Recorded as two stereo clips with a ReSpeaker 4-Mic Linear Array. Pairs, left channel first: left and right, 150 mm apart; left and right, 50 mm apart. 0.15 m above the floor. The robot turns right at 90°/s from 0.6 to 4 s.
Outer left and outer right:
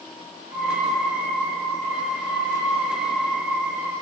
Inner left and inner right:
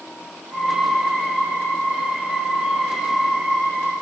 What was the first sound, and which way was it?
Only background noise.